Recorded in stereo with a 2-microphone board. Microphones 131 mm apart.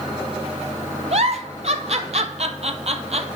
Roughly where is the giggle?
Right.